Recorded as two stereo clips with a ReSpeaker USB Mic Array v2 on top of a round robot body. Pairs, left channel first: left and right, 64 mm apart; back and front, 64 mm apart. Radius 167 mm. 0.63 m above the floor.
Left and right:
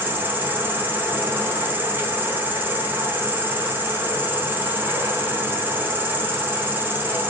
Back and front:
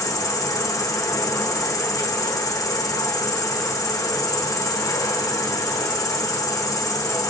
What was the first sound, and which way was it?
An insect, 150° right.